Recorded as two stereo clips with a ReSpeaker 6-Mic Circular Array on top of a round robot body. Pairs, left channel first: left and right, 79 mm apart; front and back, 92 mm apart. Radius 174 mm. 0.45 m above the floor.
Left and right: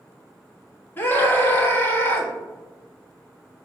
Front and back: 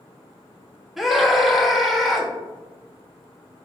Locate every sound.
1.0 s a scream: 95° left, 1.2 m